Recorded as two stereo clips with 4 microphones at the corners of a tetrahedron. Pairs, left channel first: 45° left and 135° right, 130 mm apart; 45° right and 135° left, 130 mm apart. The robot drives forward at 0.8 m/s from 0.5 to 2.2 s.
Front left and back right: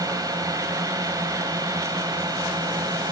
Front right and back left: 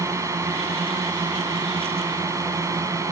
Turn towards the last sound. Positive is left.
turn(degrees=-175)